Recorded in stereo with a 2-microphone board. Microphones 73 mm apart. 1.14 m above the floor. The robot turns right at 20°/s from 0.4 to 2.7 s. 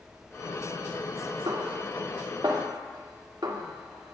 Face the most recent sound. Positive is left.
turn(degrees=-70)  # may be behind; listen again after turning